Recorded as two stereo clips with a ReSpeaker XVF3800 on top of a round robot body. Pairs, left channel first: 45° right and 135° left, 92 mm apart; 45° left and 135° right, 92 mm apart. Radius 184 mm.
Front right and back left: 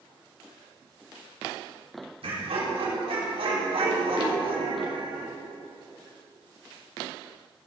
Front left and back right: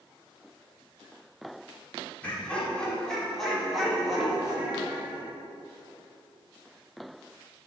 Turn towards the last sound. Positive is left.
turn(degrees=150)